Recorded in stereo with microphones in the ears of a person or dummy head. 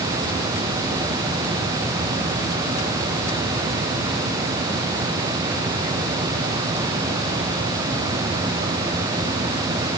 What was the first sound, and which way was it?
Only background noise.